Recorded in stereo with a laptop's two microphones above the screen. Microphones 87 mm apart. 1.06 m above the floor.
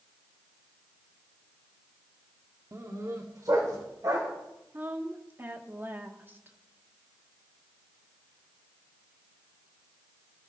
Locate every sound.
2.7 s a dog barking: 35° right (ahead or behind), 1.0 m; by 4.3 s 45° right (ahead or behind), 2.5 m
4.7 s a woman speaking: 25° right (ahead or behind), 1.8 m